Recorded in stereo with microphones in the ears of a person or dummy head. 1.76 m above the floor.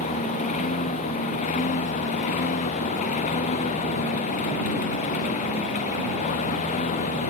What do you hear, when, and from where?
0.0 s a lawn mower: 40° left (ahead or behind)